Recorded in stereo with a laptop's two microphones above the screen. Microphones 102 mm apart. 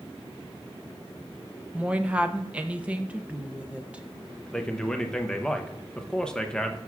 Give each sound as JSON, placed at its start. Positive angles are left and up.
{"t": 1.7, "sound": "a woman speaking", "side_deg": -10, "distance_m": 0.5}
{"t": 4.5, "sound": "a man speaking", "side_deg": 10, "distance_m": 0.7}